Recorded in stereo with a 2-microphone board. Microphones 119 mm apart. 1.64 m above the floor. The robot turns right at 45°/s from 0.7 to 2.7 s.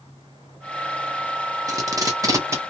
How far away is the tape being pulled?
About 0.9 m.